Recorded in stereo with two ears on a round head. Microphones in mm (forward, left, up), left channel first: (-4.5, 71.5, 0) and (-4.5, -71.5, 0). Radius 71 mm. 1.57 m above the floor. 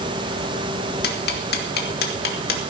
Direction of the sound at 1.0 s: 70° left (ahead or behind).